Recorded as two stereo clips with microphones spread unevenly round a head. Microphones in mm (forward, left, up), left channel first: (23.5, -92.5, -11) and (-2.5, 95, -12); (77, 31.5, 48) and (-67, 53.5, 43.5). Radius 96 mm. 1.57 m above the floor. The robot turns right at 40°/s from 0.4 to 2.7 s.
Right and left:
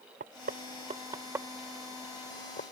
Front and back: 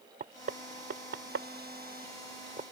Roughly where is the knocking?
Behind left.